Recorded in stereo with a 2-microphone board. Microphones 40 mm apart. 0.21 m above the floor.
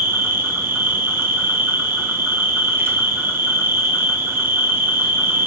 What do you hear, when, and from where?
0.0 s an insect: 80° right, 0.9 m